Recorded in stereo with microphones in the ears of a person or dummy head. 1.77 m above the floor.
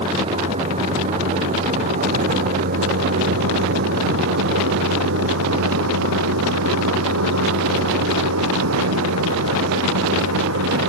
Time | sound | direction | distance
0.0 | a vehicle | 30° right (ahead or behind) | ?